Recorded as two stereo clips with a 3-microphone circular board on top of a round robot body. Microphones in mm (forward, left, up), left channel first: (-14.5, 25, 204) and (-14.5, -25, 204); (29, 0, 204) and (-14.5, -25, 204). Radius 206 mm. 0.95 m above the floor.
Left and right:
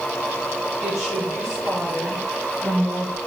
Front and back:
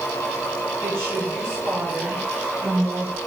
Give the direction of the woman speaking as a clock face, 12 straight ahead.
6 o'clock.